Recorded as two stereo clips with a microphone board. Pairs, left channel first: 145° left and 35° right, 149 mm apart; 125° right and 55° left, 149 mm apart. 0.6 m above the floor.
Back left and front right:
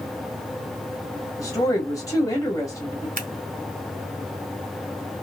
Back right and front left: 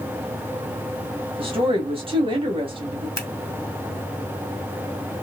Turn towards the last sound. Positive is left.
turn(degrees=-55)